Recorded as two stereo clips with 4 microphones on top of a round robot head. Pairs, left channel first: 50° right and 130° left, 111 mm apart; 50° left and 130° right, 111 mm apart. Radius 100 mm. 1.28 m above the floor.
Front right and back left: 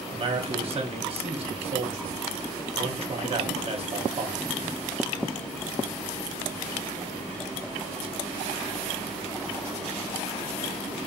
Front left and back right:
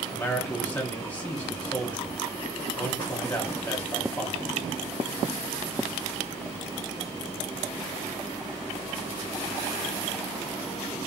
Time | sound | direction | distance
0.1 | a man speaking | 120° left | 0.8 m